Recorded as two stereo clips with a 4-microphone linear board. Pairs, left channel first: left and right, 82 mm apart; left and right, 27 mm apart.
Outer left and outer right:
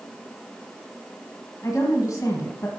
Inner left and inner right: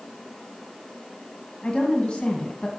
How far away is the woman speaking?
About 2 m.